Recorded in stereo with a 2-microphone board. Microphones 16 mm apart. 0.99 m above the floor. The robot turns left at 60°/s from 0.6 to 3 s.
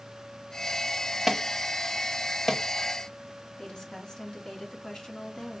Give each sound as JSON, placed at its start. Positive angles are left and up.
{"t": 1.3, "sound": "an alarm", "side_deg": -10, "distance_m": 0.9}
{"t": 3.6, "sound": "a woman speaking", "side_deg": 60, "distance_m": 1.7}